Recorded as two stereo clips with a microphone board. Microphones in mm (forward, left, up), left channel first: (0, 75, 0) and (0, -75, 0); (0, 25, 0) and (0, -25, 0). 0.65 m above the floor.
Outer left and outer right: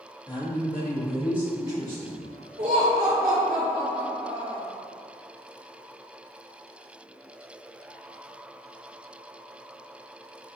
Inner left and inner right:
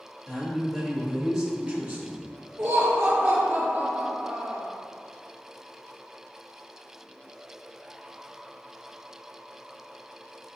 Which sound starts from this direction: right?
Laughter, at 2.6 s.